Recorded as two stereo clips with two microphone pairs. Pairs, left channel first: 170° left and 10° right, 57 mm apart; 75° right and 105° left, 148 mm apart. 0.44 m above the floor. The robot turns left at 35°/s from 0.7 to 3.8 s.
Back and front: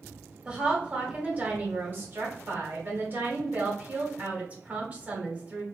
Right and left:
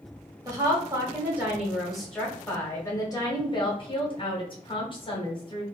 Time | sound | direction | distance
0.5 | a woman speaking | 55° left | 1.2 m